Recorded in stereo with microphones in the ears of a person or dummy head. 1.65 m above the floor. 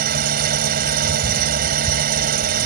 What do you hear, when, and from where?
0.0 s an engine running: 50° right (ahead or behind)